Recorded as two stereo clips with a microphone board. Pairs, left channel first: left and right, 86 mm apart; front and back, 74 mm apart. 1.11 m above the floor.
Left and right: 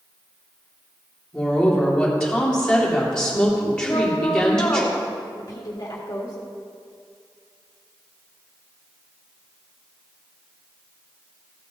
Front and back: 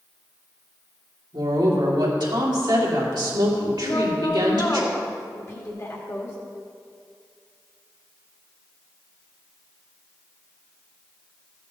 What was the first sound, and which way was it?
A woman speaking, 175° left.